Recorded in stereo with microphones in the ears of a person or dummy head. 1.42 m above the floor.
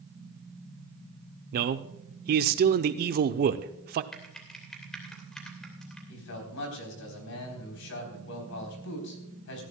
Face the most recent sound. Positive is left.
turn(degrees=70)  # may be behind; listen again after turning